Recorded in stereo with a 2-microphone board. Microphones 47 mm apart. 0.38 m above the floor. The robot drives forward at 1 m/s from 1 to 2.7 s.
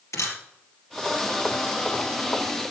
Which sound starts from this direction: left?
A camera shutter, at 0.1 s.